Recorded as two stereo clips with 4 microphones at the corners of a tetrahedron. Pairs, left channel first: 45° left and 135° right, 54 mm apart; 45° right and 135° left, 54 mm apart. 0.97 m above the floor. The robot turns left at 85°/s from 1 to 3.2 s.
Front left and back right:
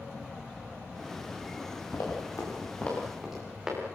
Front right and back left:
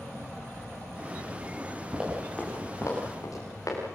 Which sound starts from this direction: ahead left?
Running footsteps, at 1.9 s.